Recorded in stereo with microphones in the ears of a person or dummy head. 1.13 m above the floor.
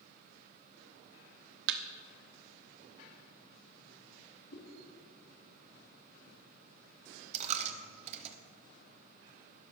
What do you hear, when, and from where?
1.7 s a thud: 60° right (ahead or behind), 0.9 m
4.5 s a whoosh: 55° left (ahead or behind), 2.5 m
7.3 s a dropped coin: 40° right (ahead or behind), 0.9 m